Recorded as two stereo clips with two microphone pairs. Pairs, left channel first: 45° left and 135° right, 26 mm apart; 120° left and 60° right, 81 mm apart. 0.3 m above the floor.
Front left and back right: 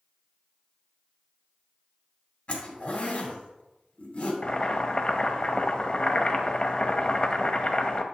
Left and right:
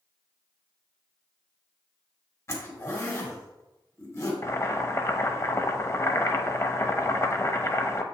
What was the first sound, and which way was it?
A zipper, 80° left.